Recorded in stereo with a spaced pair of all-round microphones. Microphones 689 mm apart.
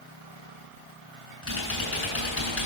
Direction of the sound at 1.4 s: 45° left (ahead or behind).